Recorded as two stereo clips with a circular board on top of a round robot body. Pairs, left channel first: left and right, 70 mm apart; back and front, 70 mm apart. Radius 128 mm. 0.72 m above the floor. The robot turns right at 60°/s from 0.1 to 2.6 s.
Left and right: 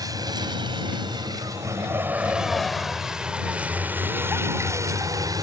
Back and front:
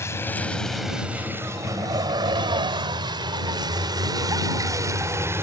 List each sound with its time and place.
0.0 s a vehicle: 125° right; by 5.5 s 55° right